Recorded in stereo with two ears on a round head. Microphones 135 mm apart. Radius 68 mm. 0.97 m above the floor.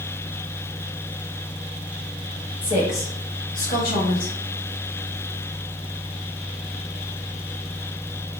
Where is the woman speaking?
35° left (ahead or behind), 1.5 m; by 4.3 s 70° left (ahead or behind), 1.6 m.